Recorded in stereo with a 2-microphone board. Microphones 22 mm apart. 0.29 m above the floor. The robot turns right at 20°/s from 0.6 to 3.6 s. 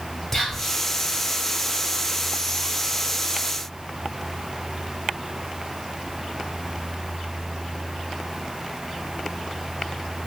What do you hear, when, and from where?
0.3 s whispering: 15° left (ahead or behind), 1.1 m; by 0.8 s 20° left (ahead or behind), 1.1 m